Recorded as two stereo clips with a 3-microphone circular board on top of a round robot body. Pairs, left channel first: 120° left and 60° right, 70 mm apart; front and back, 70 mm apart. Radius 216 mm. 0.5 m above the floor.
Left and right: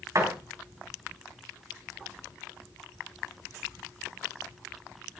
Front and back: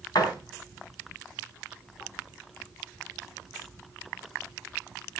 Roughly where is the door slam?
Ahead.